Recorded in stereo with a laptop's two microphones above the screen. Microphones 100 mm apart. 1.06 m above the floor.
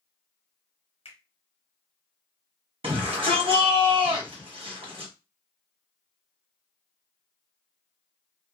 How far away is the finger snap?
About 1.0 m.